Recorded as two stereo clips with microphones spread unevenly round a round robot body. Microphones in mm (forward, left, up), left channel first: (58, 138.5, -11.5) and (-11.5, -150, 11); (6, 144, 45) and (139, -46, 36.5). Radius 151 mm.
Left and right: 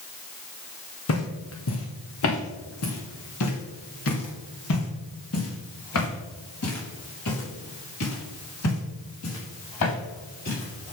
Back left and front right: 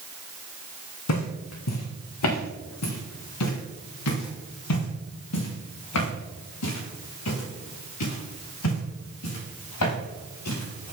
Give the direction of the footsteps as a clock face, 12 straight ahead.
8 o'clock.